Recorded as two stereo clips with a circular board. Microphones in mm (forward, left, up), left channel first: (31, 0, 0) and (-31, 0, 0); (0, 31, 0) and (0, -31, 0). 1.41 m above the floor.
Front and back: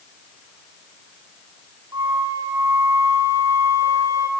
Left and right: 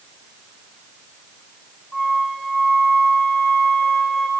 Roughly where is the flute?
Behind.